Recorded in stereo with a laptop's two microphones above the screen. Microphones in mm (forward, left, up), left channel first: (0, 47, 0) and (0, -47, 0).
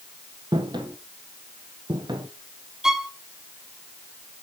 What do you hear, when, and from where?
0.5 s footsteps: 50° right (ahead or behind), 1.6 m
2.8 s a violin: 5° right (ahead or behind), 0.8 m